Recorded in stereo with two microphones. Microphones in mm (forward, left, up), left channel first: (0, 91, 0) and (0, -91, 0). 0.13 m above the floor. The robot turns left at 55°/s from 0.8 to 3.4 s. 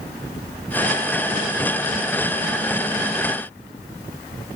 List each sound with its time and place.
Only background noise.